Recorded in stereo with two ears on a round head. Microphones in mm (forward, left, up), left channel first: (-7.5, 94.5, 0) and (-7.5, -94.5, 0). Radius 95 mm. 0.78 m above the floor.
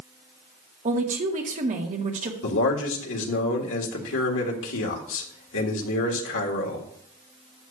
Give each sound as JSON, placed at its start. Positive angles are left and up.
{"t": 0.8, "sound": "a woman speaking", "side_deg": -40, "distance_m": 1.6}
{"t": 2.4, "sound": "a man speaking", "side_deg": 65, "distance_m": 1.7}